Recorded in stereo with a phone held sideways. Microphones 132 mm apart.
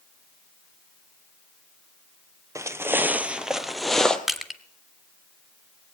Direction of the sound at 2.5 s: 25° right (ahead or behind).